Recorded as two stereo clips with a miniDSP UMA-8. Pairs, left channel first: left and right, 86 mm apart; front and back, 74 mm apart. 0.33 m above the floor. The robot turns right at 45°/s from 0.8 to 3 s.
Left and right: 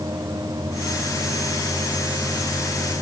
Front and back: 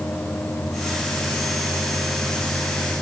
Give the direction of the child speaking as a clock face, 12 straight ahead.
I don't hear a child speaking.